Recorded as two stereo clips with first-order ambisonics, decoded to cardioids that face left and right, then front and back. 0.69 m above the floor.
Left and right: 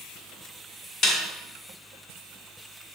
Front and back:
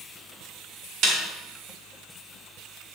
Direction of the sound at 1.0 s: 150° left.